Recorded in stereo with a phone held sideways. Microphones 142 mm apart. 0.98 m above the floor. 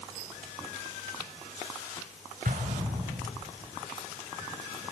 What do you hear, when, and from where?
2.5 s an explosion: 85° right, 4.5 m